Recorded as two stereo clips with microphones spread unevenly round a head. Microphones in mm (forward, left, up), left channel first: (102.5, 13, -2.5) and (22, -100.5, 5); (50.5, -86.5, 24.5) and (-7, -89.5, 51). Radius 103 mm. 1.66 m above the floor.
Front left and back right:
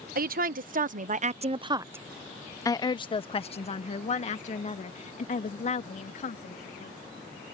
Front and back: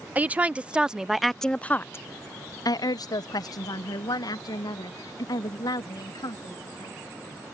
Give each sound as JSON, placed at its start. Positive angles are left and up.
{"t": 0.1, "sound": "a woman speaking", "azimuth_deg": -115}